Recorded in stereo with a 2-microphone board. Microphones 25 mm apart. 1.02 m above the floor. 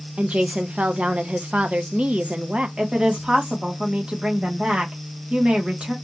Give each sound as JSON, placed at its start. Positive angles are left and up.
{"t": 0.2, "sound": "a woman speaking", "side_deg": -55, "distance_m": 0.6}
{"t": 2.8, "sound": "a woman speaking", "side_deg": -40, "distance_m": 1.4}